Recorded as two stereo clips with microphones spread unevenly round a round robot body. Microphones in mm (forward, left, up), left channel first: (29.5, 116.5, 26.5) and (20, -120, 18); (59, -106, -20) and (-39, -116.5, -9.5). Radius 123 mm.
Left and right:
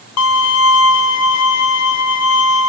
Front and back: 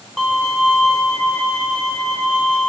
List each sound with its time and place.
0.2 s a violin: 95° left, 0.8 m